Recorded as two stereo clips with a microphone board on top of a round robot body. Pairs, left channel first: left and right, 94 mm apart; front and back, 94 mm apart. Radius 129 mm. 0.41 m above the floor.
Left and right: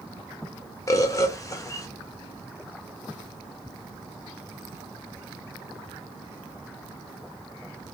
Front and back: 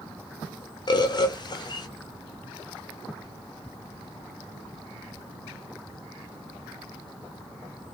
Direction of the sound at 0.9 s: 35° left.